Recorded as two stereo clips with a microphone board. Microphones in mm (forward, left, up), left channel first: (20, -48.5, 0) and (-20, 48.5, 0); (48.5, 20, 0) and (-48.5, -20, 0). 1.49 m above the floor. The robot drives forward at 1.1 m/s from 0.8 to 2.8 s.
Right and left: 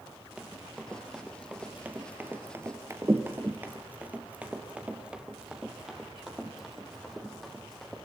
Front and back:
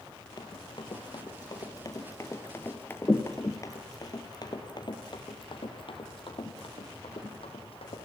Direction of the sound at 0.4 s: 35° left.